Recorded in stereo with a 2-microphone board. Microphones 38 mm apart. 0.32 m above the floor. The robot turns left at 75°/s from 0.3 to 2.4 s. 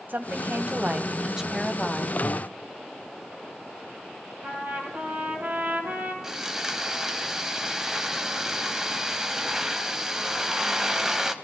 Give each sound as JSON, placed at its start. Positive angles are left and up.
{"t": 0.1, "sound": "a woman speaking", "azimuth_deg": -85, "distance_m": 2.5}
{"t": 2.2, "sound": "breathing", "side_deg": -70, "distance_m": 4.5}
{"t": 4.4, "sound": "a trumpet", "side_deg": -45, "distance_m": 3.5}
{"t": 6.2, "sound": "sawing", "side_deg": -15, "distance_m": 1.3}